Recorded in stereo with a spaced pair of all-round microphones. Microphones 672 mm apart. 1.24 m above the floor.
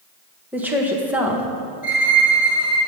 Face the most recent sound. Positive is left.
turn(degrees=45)  # may be behind; listen again after turning